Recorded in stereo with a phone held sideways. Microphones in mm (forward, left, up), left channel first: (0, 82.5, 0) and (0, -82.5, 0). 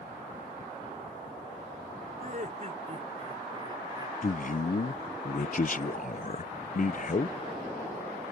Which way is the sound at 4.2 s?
55° left (ahead or behind).